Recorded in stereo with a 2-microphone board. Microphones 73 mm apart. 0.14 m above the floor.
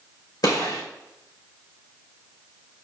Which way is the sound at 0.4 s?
70° left (ahead or behind).